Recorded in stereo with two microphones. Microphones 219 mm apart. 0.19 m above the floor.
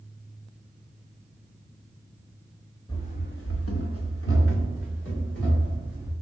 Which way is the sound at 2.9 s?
15° left (ahead or behind).